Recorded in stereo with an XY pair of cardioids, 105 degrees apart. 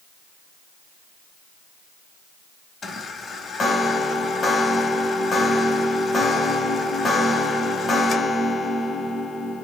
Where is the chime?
45° left, 0.8 m.